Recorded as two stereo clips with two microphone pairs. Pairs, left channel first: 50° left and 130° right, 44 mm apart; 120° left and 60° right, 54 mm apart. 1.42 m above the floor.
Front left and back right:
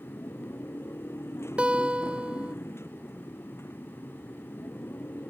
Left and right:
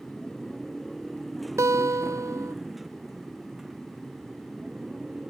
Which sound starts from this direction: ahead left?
A motorcycle, at 0.0 s.